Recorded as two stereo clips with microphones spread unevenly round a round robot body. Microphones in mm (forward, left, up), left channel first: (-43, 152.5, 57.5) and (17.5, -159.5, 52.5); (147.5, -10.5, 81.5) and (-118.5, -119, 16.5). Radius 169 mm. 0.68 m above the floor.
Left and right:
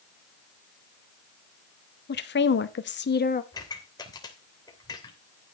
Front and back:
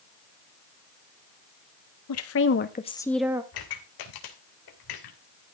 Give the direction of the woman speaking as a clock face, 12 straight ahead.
10 o'clock.